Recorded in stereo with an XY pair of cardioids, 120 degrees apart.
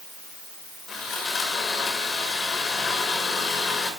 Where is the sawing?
45° left, 7 m.